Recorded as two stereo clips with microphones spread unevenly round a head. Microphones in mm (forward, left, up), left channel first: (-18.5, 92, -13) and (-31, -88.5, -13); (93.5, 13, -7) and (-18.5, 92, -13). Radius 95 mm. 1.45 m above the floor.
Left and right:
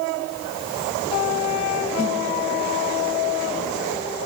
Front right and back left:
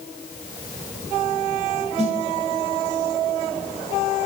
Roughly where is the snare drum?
Left.